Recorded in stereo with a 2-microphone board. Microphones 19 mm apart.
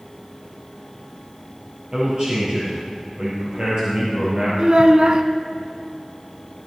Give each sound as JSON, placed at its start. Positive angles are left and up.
{"t": 1.9, "sound": "a man speaking", "side_deg": -50, "distance_m": 4.5}
{"t": 4.6, "sound": "a child speaking", "side_deg": -45, "distance_m": 1.0}